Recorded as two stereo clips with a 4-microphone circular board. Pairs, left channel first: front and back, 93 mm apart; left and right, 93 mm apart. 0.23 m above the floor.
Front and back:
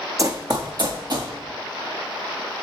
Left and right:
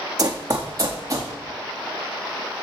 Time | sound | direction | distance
0.2 | running footsteps | 130° right | 0.6 m